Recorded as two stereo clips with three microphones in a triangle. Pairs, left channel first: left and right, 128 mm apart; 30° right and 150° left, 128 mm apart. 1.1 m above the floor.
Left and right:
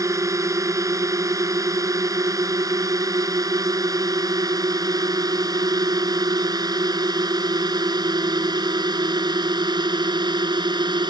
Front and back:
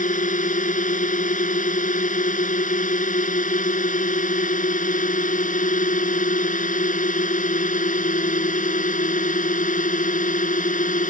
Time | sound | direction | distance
0.0 | a drone | 25° right | ?